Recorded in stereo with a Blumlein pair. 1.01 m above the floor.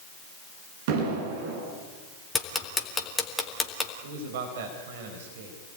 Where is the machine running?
No machine running in this recording.